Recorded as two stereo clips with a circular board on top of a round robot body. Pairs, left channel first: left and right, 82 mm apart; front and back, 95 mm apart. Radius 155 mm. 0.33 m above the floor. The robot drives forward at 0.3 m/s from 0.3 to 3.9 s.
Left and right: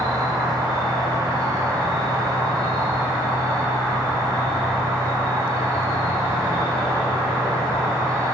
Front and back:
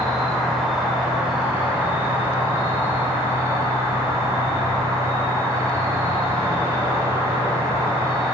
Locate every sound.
0.0 s an insect: 90° right, 2.0 m; by 8.3 s 130° right, 2 m